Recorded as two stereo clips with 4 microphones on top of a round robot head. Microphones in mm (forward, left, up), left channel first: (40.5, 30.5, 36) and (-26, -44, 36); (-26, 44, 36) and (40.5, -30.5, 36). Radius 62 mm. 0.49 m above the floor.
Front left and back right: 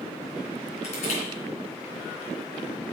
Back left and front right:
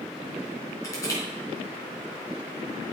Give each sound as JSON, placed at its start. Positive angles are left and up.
{"t": 0.8, "sound": "crushing", "azimuth_deg": 70, "distance_m": 3.5}